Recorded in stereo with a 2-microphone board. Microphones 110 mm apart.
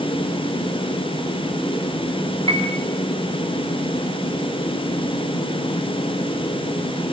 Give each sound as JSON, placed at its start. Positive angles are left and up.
{"t": 2.5, "sound": "a piano", "side_deg": -60, "distance_m": 4.0}